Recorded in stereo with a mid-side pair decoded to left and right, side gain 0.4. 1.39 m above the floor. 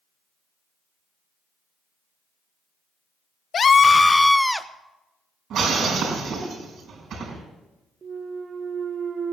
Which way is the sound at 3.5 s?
55° left.